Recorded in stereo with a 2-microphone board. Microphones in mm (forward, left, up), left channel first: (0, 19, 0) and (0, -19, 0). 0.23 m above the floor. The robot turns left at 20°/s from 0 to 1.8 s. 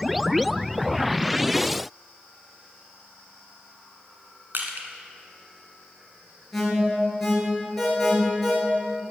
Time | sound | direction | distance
4.5 | crushing | 60° right (ahead or behind) | 1.3 m
6.5 | an alarm | 5° left (ahead or behind) | 3.5 m